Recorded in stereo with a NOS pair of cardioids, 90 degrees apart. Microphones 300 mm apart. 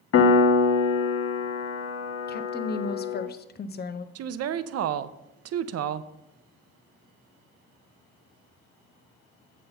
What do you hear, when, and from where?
0.1 s a piano: 50° left, 0.9 m
2.3 s a woman speaking: 35° left, 0.6 m
4.2 s a woman speaking: 55° right, 0.5 m